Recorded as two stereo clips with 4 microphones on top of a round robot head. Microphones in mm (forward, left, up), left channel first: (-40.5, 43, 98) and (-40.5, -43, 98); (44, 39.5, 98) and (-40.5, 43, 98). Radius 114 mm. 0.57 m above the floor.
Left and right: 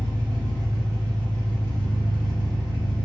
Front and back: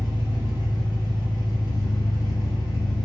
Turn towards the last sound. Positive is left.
turn(degrees=-35)